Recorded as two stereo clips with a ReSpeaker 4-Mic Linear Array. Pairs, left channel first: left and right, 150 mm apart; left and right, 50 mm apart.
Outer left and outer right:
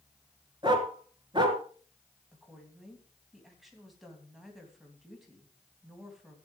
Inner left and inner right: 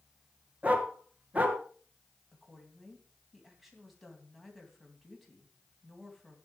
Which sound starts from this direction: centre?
A woman speaking, at 2.3 s.